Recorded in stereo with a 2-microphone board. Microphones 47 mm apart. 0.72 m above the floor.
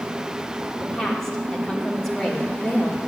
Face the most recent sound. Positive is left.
turn(degrees=10)  # may be behind; listen again after turning